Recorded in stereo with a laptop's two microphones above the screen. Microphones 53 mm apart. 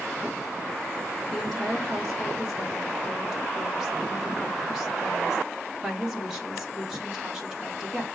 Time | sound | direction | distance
1.3 | a woman speaking | 10° right (ahead or behind) | 1.3 m